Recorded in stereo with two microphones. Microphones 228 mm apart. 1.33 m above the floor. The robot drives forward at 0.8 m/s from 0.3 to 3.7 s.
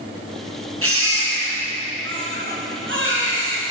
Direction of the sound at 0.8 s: 75° right (ahead or behind).